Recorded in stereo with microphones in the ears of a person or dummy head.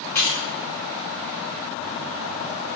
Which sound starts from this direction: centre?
Keys jangling, at 0.1 s.